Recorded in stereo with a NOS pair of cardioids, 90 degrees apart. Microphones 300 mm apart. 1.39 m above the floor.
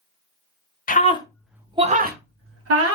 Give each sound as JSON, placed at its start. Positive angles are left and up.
{"t": 0.9, "sound": "a scream", "azimuth_deg": 30, "distance_m": 0.8}